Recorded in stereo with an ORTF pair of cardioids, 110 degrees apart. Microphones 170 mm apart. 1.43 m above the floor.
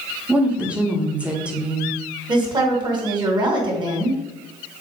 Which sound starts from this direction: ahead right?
A woman speaking, at 2.3 s.